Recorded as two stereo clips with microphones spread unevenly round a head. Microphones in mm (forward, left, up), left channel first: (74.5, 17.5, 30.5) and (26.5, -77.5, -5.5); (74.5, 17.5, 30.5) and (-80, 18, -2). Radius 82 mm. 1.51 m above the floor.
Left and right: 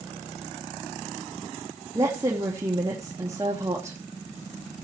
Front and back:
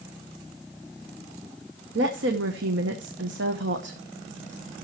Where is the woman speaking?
165° left, 1.0 m.